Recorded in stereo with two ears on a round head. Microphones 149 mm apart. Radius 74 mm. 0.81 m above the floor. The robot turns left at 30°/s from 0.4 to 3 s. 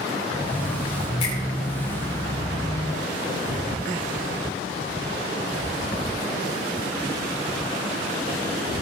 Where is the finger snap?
40° left (ahead or behind), 7.5 m; by 1.4 s 35° left (ahead or behind), 7.5 m.